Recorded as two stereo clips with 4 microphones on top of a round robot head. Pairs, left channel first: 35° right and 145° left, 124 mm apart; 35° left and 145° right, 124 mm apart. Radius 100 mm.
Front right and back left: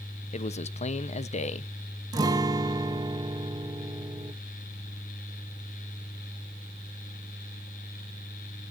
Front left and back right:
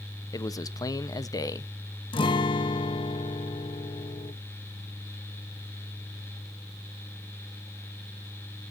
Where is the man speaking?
25° right, 1.0 m.